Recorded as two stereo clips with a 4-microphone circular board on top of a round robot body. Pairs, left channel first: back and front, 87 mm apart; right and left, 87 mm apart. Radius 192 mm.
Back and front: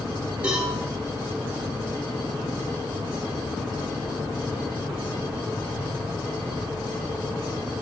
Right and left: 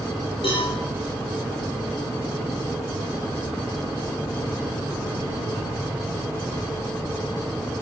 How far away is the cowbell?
About 8.5 m.